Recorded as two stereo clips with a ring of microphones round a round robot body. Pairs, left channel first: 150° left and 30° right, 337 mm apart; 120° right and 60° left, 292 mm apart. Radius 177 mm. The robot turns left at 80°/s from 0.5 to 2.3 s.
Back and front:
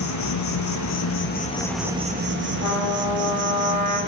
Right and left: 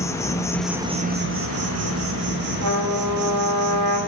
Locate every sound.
0.0 s an insect: 160° left, 0.8 m; by 4.1 s 15° left, 0.8 m
2.6 s a trumpet: 70° left, 4.5 m